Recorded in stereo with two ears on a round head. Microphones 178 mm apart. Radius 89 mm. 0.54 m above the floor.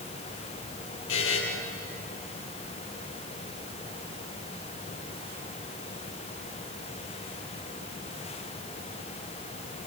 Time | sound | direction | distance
1.1 | a buzzer | 75° left (ahead or behind) | 6.5 m